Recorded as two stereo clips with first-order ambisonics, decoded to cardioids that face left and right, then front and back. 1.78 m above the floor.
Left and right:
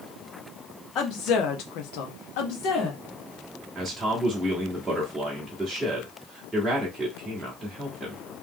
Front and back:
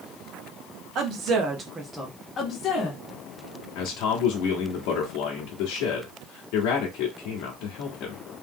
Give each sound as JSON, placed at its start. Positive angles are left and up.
{"t": 0.9, "sound": "a woman speaking", "azimuth_deg": 135, "distance_m": 1.3}
{"t": 3.8, "sound": "a man speaking", "azimuth_deg": -10, "distance_m": 1.0}